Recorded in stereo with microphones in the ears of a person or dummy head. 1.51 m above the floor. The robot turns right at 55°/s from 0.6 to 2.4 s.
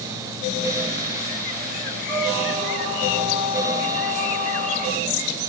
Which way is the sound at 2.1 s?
55° right (ahead or behind).